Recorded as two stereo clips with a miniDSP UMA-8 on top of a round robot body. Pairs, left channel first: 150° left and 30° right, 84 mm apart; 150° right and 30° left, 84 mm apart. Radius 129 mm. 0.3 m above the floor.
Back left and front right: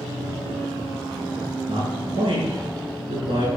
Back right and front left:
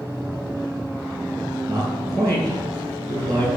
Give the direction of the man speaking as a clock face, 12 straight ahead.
12 o'clock.